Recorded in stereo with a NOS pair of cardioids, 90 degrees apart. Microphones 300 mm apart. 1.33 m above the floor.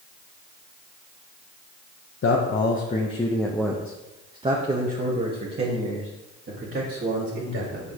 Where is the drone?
No drone in this recording.